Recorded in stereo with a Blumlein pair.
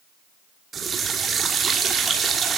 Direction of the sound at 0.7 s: 20° right.